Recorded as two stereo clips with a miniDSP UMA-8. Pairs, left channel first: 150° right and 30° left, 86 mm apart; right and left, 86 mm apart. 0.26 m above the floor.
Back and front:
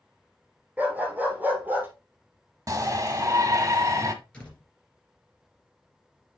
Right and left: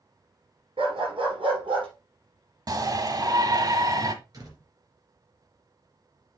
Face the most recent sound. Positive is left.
turn(degrees=135)